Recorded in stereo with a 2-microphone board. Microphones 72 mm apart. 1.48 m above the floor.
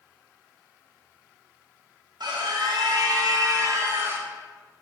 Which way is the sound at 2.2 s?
75° right (ahead or behind).